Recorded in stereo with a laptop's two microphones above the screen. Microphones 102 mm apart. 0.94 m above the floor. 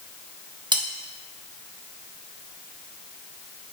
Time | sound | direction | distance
0.7 | cutlery clinking | 45° right (ahead or behind) | 1.0 m